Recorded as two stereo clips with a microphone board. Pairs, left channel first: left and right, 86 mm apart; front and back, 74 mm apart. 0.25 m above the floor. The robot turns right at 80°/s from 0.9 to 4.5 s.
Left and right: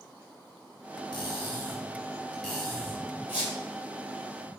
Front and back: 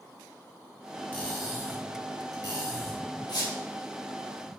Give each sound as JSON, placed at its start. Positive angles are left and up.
{"t": 1.1, "sound": "cutlery clinking", "azimuth_deg": 65, "distance_m": 1.6}
{"t": 3.3, "sound": "a squeak", "azimuth_deg": -20, "distance_m": 1.7}